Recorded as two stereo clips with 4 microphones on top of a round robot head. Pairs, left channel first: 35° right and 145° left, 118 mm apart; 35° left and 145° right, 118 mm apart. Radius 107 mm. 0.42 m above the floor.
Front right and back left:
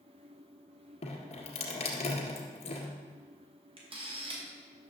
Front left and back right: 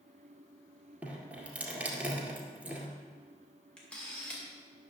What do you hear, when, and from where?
1.0 s dripping: 70° right, 1.9 m
3.8 s a camera shutter: 115° left, 2.5 m